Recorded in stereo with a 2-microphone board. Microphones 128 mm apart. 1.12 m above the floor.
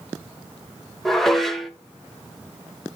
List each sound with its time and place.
1.1 s dishes clattering: centre (ahead or behind), 0.5 m